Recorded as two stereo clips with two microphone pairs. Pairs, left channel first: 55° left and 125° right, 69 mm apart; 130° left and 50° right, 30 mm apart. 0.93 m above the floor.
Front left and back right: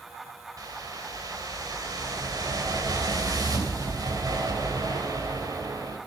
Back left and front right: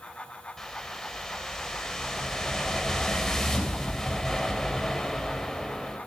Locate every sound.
0.6 s a whoosh: 150° right, 3 m